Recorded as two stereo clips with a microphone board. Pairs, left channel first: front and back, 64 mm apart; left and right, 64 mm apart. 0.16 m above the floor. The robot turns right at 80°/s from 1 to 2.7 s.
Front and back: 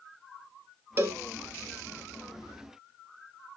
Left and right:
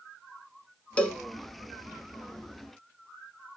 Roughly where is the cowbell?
Behind left.